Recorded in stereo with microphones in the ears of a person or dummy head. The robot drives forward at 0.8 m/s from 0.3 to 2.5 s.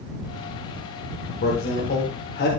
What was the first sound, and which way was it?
A man speaking, 55° left (ahead or behind).